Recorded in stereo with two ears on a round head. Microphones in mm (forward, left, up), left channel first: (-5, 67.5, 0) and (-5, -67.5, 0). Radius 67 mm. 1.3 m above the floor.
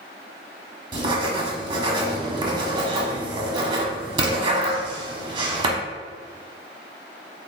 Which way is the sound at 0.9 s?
30° right (ahead or behind).